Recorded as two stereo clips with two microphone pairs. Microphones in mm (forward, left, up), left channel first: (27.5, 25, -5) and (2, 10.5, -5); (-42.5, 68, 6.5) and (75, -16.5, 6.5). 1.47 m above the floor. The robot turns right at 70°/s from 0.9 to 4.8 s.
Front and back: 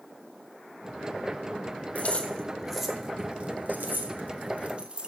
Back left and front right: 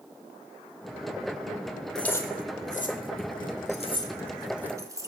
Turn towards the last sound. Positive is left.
turn(degrees=-100)